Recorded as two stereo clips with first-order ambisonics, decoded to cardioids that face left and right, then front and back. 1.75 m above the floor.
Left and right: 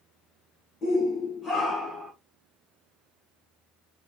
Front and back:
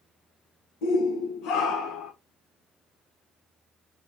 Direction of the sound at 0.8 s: 20° left.